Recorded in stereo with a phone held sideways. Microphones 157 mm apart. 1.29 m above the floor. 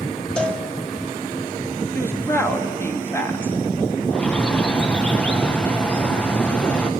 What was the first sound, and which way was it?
A cowbell, 5° left (ahead or behind).